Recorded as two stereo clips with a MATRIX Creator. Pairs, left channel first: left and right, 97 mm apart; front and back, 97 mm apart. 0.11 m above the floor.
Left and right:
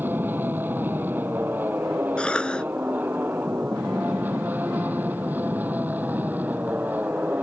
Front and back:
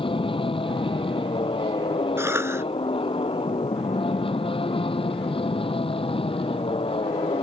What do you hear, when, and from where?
0.0 s an aircraft: 20° right
2.2 s a cough: 155° left